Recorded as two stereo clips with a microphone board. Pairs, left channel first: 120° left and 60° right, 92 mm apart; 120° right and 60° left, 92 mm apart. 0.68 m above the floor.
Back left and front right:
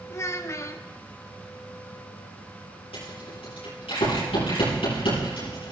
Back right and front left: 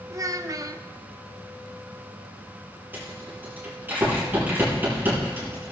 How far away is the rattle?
About 7.5 m.